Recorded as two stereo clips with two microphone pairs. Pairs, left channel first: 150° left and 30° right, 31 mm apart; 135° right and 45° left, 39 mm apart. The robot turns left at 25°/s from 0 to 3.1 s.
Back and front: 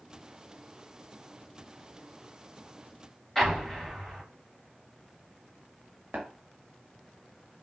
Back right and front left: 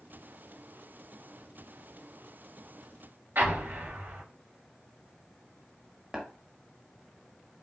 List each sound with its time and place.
3.4 s an explosion: 70° left, 3 m
6.1 s tapping: 30° right, 1.6 m